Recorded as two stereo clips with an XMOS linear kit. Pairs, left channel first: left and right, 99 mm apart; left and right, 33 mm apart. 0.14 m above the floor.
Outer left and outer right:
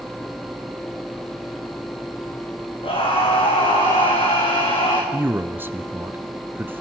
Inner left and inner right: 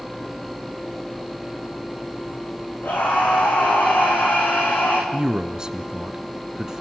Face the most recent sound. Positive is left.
turn(degrees=-20)  # may be behind; listen again after turning